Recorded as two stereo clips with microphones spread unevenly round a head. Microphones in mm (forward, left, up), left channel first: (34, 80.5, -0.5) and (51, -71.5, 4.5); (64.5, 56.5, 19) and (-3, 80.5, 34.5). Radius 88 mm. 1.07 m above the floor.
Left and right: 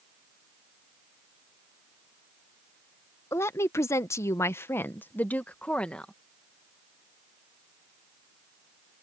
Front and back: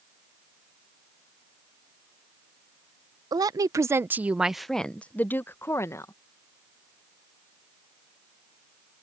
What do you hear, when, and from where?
3.3 s a woman speaking: 165° left; by 6.1 s 15° left